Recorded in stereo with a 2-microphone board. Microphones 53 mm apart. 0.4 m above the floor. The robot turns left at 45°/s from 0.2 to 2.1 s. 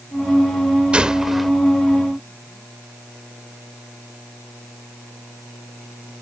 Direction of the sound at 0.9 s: 20° right (ahead or behind).